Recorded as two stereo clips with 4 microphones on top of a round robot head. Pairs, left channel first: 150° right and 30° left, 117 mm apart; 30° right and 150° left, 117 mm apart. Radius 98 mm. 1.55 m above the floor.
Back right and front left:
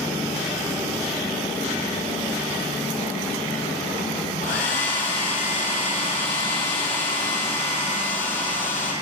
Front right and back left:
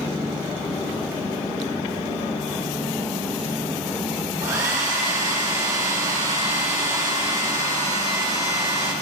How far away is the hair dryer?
About 1.8 m.